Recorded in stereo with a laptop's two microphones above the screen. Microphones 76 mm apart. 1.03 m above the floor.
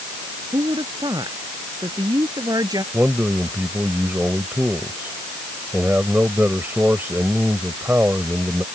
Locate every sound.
0.5 s a woman speaking: 70° right (ahead or behind); by 2.8 s 55° right (ahead or behind)
2.9 s a man speaking: 25° right (ahead or behind)